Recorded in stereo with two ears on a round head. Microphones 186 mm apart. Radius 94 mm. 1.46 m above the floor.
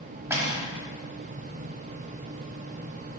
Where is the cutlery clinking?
15° right (ahead or behind), 1.0 m.